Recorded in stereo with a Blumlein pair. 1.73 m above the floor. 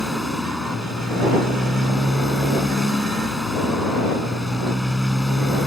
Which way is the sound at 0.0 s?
Straight ahead.